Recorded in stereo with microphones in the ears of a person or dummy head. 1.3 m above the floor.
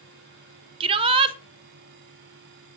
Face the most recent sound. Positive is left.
turn(degrees=-30)  # may be behind; listen again after turning